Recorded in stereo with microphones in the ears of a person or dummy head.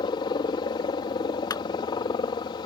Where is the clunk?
25° left (ahead or behind).